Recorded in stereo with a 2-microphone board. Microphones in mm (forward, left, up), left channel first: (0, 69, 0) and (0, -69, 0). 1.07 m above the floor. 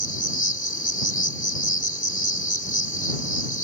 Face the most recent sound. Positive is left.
turn(degrees=75)  # may be behind; listen again after turning